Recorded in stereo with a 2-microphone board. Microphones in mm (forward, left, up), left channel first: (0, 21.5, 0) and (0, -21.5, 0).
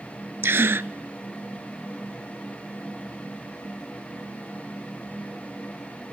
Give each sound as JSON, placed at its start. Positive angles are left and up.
{"t": 0.4, "sound": "a gasp", "side_deg": -75, "distance_m": 0.5}